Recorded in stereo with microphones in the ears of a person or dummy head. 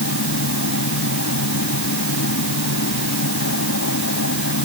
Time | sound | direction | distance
0.0 | a machine running | 75° left (ahead or behind) | ?